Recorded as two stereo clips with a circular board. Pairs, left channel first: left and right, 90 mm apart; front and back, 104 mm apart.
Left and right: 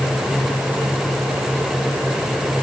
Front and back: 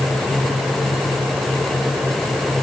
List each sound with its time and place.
Only background noise.